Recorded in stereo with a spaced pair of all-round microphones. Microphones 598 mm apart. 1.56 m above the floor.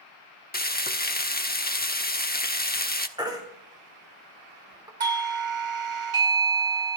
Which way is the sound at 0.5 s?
15° left (ahead or behind).